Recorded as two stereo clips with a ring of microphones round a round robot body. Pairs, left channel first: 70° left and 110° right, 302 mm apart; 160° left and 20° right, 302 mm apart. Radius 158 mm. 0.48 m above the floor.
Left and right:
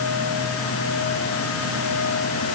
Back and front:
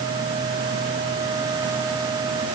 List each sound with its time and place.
Only background noise.